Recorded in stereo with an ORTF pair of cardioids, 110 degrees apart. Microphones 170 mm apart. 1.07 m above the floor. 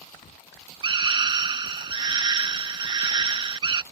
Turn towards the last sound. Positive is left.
turn(degrees=-30)